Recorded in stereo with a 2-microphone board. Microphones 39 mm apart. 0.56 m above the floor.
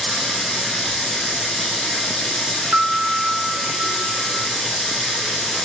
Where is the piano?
70° right (ahead or behind), 0.6 m.